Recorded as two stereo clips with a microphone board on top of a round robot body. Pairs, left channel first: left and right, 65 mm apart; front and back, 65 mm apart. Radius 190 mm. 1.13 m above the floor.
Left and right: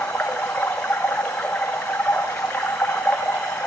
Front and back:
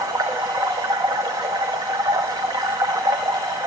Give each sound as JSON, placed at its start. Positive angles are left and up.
{"t": 0.0, "sound": "running water", "azimuth_deg": 165, "distance_m": 0.8}